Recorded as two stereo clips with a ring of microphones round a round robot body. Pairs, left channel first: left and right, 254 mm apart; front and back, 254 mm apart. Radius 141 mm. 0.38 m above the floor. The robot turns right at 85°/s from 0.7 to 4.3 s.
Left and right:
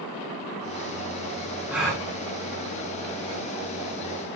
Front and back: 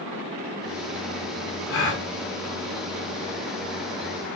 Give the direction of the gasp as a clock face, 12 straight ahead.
12 o'clock.